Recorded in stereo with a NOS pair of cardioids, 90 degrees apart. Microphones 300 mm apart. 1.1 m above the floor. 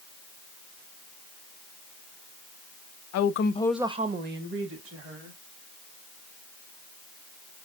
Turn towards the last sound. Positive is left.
turn(degrees=-50)